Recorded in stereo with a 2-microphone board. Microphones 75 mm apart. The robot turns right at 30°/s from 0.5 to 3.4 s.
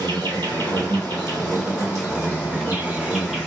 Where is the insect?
90° right, 1.1 m; by 3.5 s straight ahead, 1.1 m.